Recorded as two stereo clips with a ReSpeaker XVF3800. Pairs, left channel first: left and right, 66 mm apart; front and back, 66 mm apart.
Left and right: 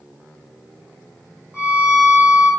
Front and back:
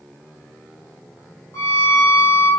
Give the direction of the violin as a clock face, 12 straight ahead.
1 o'clock.